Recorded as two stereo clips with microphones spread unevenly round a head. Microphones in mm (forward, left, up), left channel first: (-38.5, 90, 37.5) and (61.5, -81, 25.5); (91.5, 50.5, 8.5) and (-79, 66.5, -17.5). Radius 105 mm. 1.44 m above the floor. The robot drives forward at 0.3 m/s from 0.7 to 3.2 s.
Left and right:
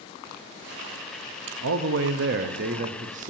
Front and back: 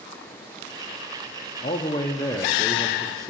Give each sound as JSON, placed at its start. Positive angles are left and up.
{"t": 1.6, "sound": "a man speaking", "azimuth_deg": -70, "distance_m": 0.7}